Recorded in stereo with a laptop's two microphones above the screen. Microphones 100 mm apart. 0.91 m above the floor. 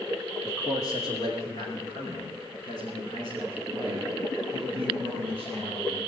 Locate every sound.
0.4 s a man speaking: 35° left (ahead or behind), 1.8 m; by 6.0 s 50° left (ahead or behind), 10 m